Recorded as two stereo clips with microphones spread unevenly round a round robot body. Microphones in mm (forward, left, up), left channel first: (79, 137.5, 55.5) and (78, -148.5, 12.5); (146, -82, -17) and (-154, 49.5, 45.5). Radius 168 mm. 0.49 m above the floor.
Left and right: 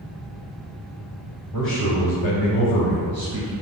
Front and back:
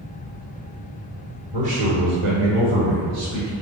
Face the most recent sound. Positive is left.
turn(degrees=155)